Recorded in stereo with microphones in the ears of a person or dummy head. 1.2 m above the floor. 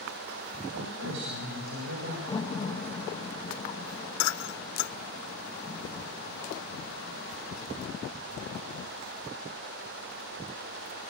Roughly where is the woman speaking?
Right.